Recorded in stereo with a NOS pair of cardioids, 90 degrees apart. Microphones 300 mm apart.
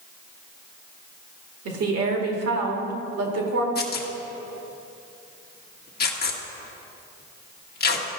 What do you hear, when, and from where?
1.6 s a woman speaking: 55° right, 2 m
3.8 s tearing paper: 35° left, 1.2 m